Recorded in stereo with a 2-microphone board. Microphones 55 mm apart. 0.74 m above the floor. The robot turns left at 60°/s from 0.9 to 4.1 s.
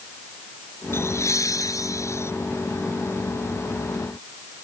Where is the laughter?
135° left; by 2.3 s 50° left.